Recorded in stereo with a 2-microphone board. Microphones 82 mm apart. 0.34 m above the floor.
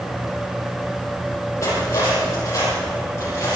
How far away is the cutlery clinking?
About 7.5 m.